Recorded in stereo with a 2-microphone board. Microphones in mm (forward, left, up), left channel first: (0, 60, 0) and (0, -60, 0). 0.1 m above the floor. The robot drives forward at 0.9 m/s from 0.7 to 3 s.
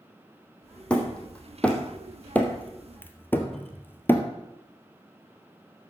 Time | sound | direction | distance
0.9 | hammering | 10° left (ahead or behind) | 3 m
3.5 | a cupboard door | centre (ahead or behind) | 2.5 m